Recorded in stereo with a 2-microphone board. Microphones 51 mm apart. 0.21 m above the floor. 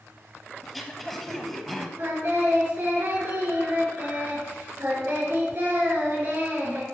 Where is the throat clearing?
Centre (ahead or behind), 1.2 m.